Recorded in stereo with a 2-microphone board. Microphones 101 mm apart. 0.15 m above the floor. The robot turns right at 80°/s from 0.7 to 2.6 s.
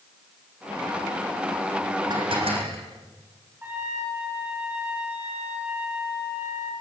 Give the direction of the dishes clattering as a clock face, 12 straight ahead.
5 o'clock.